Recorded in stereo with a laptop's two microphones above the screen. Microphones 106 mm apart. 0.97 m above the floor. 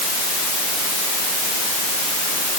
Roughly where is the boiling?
I don't hear boiling.